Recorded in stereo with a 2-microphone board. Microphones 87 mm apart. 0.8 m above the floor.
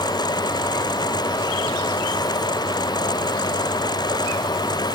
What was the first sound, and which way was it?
Only background noise.